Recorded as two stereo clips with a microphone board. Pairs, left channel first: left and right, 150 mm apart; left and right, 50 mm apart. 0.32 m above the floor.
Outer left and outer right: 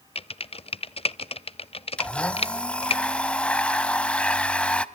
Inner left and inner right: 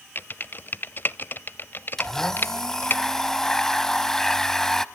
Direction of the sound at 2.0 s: 10° left (ahead or behind).